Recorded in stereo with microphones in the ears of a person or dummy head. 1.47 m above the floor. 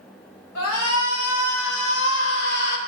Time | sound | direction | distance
0.6 | a shout | 80° left | 2.5 m